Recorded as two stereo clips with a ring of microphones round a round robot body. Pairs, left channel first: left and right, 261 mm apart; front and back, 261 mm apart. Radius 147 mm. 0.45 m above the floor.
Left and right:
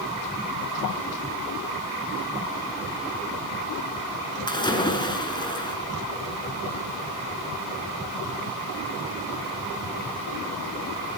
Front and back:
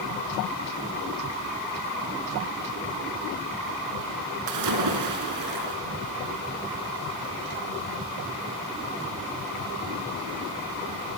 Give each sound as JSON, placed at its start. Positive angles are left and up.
{"t": 4.5, "sound": "a splash", "azimuth_deg": 165, "distance_m": 4.0}